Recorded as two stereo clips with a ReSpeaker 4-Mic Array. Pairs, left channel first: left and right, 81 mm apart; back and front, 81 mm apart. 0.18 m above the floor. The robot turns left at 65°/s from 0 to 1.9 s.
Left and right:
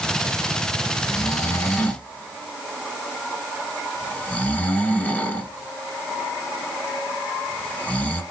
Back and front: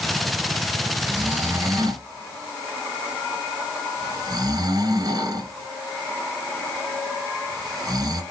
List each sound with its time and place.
1.0 s snoring: 80° left, 1.2 m; by 8.2 s 25° left, 1.2 m